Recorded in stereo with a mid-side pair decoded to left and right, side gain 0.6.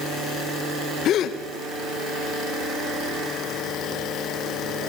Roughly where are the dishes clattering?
No dishes clattering in this recording.